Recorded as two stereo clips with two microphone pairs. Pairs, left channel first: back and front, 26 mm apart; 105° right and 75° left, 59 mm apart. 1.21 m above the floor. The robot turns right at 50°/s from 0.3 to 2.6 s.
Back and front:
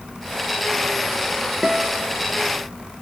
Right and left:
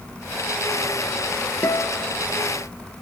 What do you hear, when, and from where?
1.6 s a guitar: 75° right, 0.8 m; by 2.1 s 45° right, 0.8 m